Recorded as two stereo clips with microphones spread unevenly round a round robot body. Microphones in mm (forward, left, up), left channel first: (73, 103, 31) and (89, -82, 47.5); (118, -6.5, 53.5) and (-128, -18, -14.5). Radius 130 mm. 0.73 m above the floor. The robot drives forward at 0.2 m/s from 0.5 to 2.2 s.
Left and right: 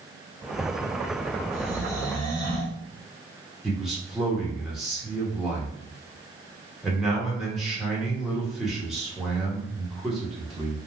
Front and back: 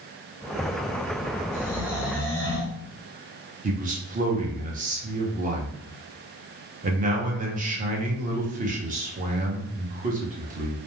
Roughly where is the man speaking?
Behind.